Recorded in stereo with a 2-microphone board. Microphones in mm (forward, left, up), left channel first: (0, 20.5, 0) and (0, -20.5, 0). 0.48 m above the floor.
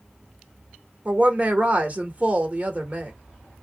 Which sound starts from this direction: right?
A woman speaking, at 1.1 s.